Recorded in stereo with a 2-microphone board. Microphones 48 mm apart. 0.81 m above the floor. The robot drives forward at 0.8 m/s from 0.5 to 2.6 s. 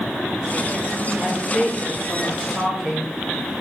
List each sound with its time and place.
1.2 s a woman speaking: 15° right (ahead or behind), 3.5 m; by 3.1 s 10° right (ahead or behind), 4.5 m